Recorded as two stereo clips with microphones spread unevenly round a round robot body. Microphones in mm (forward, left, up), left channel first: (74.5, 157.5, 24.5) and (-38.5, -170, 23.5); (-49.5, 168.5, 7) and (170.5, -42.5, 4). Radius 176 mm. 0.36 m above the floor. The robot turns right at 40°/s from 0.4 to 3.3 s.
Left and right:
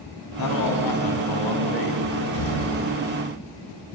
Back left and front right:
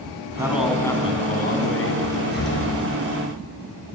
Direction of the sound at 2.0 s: 65° left.